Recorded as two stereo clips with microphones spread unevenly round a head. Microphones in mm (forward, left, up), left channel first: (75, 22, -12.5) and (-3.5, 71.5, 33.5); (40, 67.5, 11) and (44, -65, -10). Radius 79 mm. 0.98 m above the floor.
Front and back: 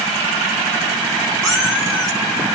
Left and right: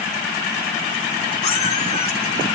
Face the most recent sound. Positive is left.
turn(degrees=65)